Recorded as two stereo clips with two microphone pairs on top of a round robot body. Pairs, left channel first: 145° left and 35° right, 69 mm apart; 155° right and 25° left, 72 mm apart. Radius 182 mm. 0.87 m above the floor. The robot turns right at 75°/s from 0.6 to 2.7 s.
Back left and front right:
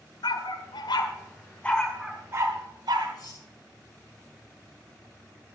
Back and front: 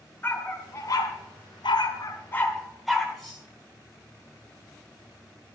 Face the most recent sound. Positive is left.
turn(degrees=120)